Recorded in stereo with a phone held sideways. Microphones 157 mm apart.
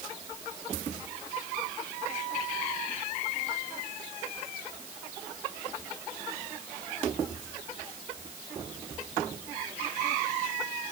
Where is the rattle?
No rattle in this recording.